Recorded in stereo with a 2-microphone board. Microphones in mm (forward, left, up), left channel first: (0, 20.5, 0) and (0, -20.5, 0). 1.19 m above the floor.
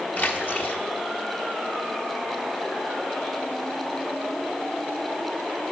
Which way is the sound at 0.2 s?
50° left (ahead or behind).